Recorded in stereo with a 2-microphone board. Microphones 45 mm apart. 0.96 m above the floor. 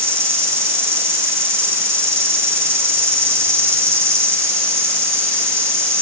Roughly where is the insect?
Right.